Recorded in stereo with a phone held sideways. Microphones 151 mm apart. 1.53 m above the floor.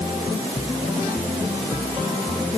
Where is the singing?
No singing in this recording.